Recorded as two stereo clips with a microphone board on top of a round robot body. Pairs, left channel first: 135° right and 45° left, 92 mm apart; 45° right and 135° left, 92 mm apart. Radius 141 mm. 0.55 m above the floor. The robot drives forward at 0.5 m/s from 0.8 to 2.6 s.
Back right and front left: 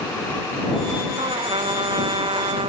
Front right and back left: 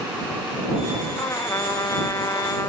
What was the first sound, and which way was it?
A trumpet, 15° left.